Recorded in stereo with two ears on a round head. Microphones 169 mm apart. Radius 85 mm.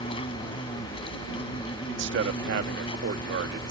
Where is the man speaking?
65° right (ahead or behind).